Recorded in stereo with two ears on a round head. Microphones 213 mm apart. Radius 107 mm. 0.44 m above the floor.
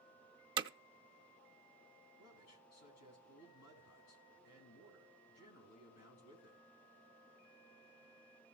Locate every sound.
0.6 s hammering: 20° right (ahead or behind), 0.5 m
2.2 s a man speaking: 75° left (ahead or behind), 3.5 m